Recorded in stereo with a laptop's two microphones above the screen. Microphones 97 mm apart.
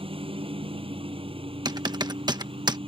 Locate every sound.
0.0 s a lawn mower: 80° right
1.6 s typing on a keyboard: 50° right (ahead or behind)